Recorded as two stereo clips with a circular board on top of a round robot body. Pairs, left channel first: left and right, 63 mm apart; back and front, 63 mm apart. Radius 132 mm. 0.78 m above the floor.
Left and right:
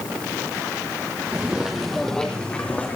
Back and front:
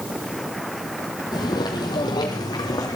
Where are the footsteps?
160° right, 1.1 m; by 3.0 s 155° left, 1.7 m.